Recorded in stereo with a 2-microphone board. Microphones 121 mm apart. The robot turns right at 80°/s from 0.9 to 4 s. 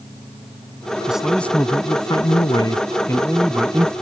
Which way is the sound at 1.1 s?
15° right.